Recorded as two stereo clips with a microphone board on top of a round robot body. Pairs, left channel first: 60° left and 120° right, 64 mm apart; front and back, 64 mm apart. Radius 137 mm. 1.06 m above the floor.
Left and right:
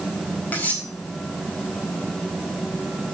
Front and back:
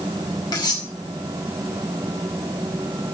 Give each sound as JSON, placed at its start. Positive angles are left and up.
{"t": 0.5, "sound": "cutlery clinking", "azimuth_deg": -5, "distance_m": 4.5}